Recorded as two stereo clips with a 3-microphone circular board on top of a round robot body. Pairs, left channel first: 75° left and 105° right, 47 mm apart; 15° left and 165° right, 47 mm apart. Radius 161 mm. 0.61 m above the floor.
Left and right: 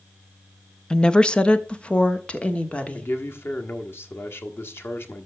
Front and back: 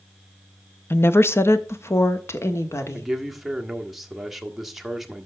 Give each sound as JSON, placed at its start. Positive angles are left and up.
{"t": 0.9, "sound": "a woman speaking", "azimuth_deg": 5, "distance_m": 0.8}
{"t": 2.9, "sound": "a man speaking", "azimuth_deg": 110, "distance_m": 1.5}